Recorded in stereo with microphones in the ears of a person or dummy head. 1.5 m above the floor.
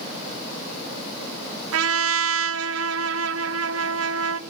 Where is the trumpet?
80° right, 0.8 m.